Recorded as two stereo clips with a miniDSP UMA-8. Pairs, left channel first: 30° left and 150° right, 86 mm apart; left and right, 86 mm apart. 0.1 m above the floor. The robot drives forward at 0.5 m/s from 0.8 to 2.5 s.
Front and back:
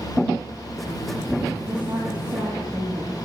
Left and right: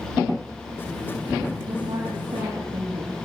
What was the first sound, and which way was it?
A woman speaking, 75° right.